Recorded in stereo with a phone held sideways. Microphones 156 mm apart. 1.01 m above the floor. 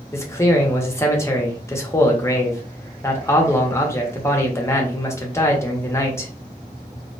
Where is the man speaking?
15° left (ahead or behind), 0.7 m.